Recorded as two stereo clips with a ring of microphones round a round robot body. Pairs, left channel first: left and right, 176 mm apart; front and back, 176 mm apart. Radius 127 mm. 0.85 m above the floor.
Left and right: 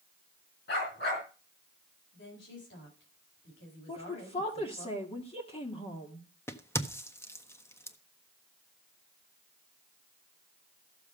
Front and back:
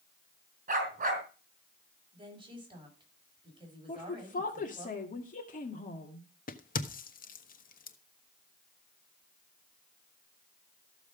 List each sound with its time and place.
0.7 s a dog barking: 140° left, 4 m
2.1 s a woman speaking: 120° left, 6.5 m
3.9 s a woman speaking: 35° left, 2 m
6.5 s a crack: 15° left, 1.3 m